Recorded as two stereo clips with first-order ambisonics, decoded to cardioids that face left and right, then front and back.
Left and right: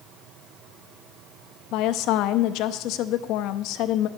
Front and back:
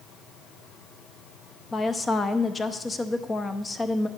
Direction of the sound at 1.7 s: 70° left.